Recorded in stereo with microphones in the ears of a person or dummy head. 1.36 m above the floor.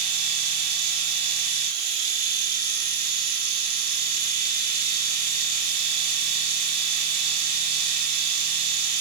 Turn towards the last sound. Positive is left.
turn(degrees=-50)  # may be behind; listen again after turning